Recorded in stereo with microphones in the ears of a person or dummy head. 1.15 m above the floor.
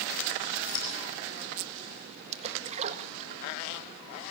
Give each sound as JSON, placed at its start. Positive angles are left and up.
{"t": 0.7, "sound": "scissors", "side_deg": 70, "distance_m": 7.0}
{"t": 2.3, "sound": "a splash", "side_deg": -40, "distance_m": 1.5}